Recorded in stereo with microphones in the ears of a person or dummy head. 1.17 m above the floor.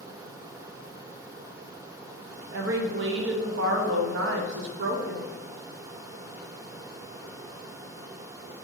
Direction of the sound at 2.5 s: 60° right (ahead or behind).